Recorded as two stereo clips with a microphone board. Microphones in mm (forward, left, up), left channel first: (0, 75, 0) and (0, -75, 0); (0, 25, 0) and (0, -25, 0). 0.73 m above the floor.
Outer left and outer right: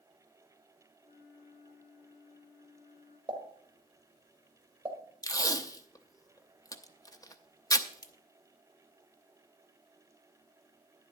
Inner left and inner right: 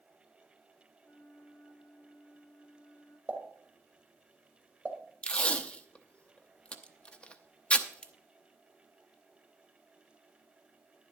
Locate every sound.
1.0 s a flute: 55° left (ahead or behind), 8 m
3.3 s a pop: 35° right (ahead or behind), 1.9 m
5.2 s tape being pulled: 25° left (ahead or behind), 0.7 m